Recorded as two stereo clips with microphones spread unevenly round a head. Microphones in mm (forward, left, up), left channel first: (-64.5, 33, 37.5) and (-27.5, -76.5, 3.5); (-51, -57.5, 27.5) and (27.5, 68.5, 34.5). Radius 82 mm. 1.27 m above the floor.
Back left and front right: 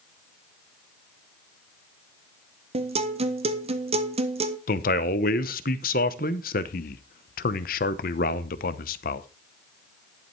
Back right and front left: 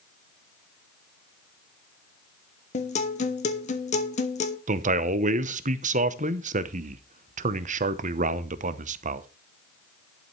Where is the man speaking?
95° left, 0.8 m.